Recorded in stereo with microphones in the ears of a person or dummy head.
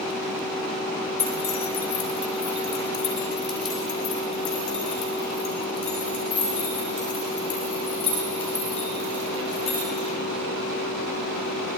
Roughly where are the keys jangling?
Centre.